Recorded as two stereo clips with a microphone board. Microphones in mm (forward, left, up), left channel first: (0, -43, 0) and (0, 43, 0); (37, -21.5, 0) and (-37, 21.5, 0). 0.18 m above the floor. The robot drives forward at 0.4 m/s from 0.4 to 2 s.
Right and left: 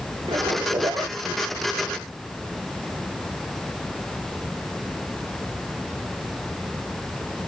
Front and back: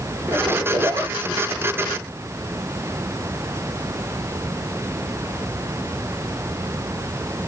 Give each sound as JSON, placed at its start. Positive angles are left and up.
{"t": 0.3, "sound": "a zipper", "azimuth_deg": 95, "distance_m": 1.5}